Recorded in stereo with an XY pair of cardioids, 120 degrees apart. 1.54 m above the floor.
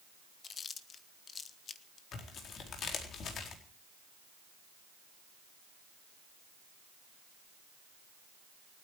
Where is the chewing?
40° left, 1.4 m.